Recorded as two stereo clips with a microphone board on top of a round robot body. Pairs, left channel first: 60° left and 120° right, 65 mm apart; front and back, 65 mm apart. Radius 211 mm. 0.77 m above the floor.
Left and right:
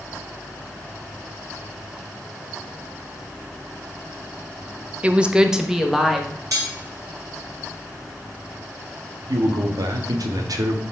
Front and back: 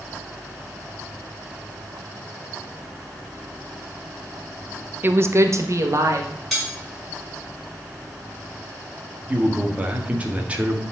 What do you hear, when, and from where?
5.0 s a woman speaking: 170° right, 1.0 m; by 6.3 s 150° left, 2.5 m
6.5 s cutlery clinking: 85° right, 5 m
9.3 s a man speaking: 115° right, 1.6 m